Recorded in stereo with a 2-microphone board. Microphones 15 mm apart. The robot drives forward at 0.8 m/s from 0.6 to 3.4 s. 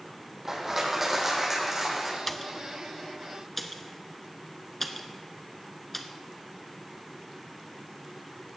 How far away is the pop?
About 0.6 m.